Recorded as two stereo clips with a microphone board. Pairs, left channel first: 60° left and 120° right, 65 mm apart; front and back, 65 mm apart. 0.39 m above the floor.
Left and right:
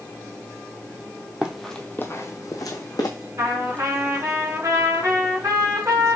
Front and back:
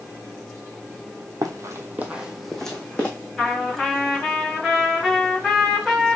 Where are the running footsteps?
165° left, 0.9 m; by 3.1 s 75° left, 1.5 m.